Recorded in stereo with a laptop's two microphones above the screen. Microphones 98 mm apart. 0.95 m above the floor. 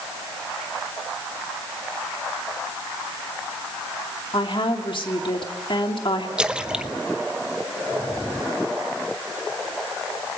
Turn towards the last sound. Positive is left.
turn(degrees=-10)  # may be behind; listen again after turning